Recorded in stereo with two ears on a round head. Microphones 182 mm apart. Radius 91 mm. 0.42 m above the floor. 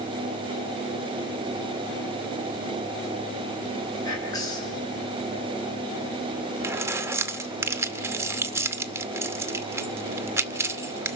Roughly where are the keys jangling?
Centre.